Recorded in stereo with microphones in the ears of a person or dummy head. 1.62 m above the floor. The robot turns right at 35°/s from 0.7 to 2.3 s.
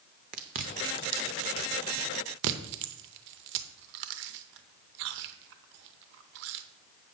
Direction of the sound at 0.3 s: 45° right (ahead or behind).